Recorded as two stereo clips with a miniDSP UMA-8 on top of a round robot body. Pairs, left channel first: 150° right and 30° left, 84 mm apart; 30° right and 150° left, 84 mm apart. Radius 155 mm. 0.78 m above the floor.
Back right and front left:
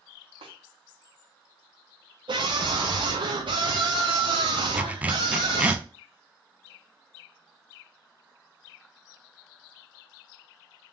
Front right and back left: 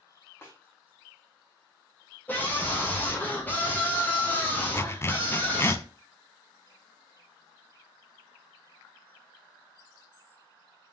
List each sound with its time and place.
0.4 s a snare drum: 35° left, 1.0 m
2.3 s a scream: 40° left, 0.7 m
4.7 s a zipper: 25° right, 0.6 m